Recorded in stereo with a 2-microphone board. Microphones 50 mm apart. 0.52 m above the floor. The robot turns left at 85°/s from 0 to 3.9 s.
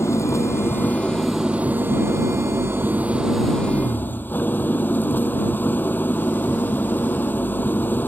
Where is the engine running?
110° left; by 8.1 s 140° left.